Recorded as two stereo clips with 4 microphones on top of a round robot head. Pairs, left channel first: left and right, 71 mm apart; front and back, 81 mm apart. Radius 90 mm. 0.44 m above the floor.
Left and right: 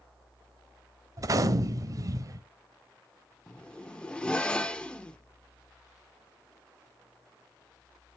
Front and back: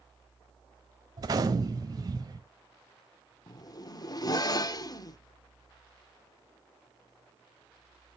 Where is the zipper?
20° left, 0.9 m.